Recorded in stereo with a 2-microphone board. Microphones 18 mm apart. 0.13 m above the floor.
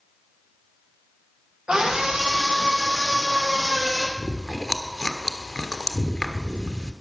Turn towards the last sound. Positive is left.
turn(degrees=50)  # may be behind; listen again after turning